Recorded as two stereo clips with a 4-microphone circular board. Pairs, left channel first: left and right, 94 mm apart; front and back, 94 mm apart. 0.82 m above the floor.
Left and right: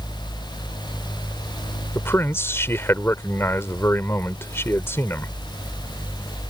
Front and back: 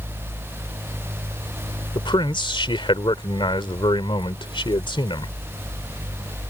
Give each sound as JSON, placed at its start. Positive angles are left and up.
{"t": 1.9, "sound": "a man speaking", "azimuth_deg": 25}